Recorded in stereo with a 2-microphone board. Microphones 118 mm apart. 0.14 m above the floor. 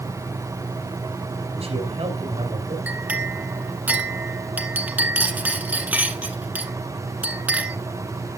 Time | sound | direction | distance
1.5 | a man speaking | 60° right (ahead or behind) | 3 m
2.9 | a clink | 15° right (ahead or behind) | 1.2 m